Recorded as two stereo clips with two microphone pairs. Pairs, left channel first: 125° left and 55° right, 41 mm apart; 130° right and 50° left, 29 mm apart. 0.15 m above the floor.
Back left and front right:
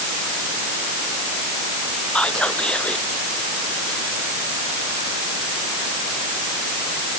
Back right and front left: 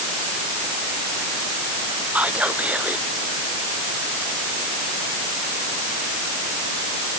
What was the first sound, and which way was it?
Whispering, 55° left.